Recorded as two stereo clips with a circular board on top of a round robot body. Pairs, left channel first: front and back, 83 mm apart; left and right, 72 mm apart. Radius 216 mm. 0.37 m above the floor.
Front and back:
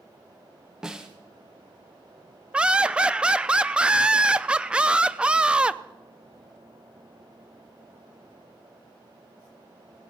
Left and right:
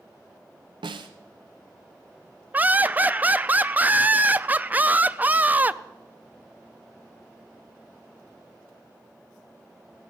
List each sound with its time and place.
0.8 s a snare drum: 95° right, 0.7 m
2.5 s laughter: 120° right, 0.8 m